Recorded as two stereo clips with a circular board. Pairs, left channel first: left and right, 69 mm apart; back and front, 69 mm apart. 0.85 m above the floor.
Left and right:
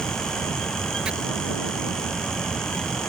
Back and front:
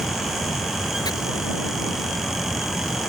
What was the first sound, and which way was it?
Chopping, 165° right.